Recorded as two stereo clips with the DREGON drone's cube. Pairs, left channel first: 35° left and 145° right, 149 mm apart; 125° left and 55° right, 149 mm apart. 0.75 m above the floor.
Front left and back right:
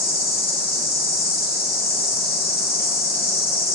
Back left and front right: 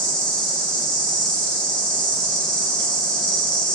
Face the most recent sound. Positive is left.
turn(degrees=40)